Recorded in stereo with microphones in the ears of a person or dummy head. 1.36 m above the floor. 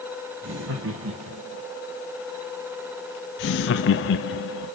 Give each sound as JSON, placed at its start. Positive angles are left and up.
{"t": 0.4, "sound": "laughter", "side_deg": -70, "distance_m": 2.0}
{"t": 3.4, "sound": "laughter", "side_deg": 75, "distance_m": 0.9}